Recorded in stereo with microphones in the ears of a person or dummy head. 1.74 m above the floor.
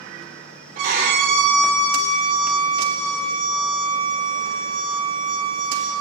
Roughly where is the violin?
Right.